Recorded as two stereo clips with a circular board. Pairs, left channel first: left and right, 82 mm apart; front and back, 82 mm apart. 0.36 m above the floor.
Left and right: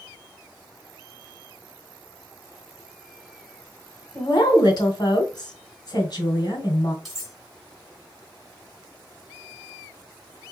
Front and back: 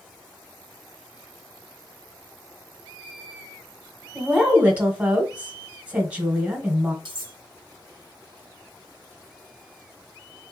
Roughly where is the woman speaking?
Left.